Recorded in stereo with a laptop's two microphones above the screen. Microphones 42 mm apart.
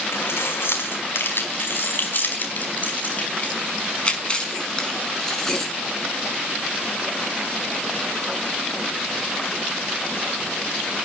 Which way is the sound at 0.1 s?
85° left.